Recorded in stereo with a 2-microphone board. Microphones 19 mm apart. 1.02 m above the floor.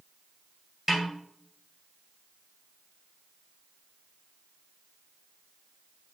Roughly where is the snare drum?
Centre.